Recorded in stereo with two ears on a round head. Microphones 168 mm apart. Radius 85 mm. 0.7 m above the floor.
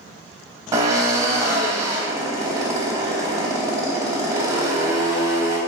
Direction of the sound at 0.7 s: 15° right (ahead or behind).